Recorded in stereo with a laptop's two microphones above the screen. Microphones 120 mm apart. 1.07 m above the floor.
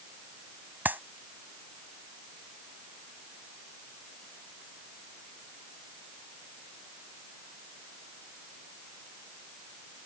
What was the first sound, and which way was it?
A clap, 15° right (ahead or behind).